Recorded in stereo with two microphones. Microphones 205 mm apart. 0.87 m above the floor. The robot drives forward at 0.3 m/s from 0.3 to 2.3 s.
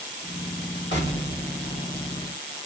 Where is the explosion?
60° left (ahead or behind), 1.7 m; by 2.4 s 65° left (ahead or behind), 1.7 m.